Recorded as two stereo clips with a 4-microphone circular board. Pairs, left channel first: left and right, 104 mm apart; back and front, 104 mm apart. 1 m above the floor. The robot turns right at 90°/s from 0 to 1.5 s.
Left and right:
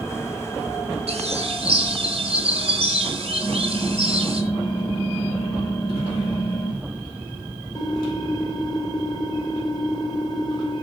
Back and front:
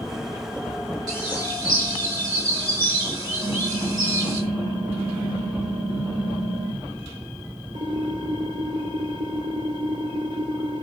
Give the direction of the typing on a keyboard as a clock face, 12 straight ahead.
11 o'clock.